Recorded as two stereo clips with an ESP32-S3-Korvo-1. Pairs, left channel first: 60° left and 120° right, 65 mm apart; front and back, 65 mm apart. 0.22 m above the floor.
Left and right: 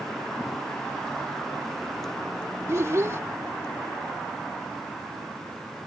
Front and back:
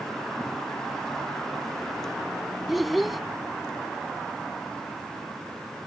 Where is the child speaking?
90° right.